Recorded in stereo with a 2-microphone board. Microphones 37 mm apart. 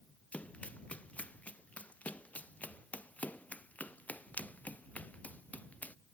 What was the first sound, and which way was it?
Running footsteps, 40° left (ahead or behind).